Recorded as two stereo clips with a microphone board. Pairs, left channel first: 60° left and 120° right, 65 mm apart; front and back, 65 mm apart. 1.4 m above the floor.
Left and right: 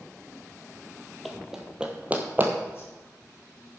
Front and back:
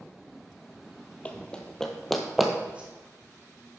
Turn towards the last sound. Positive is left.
turn(degrees=110)